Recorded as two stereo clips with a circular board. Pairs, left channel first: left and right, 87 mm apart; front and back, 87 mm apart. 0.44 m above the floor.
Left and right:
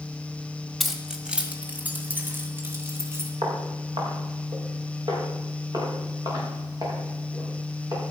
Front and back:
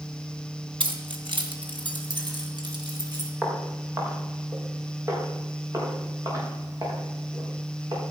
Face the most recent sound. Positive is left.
turn(degrees=-135)